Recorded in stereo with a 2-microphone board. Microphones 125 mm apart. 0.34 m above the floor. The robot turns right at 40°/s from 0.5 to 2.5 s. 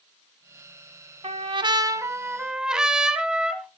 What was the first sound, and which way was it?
A trumpet, 55° right.